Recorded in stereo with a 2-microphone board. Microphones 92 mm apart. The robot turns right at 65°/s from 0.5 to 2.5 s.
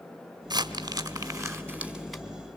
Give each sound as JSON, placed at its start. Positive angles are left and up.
{"t": 0.5, "sound": "crumpling", "side_deg": -45, "distance_m": 1.8}